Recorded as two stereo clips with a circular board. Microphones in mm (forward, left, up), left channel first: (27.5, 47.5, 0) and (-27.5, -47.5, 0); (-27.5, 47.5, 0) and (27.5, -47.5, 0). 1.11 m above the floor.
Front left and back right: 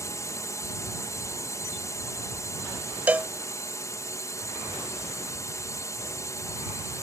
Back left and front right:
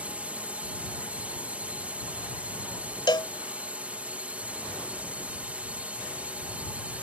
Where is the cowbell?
165° left.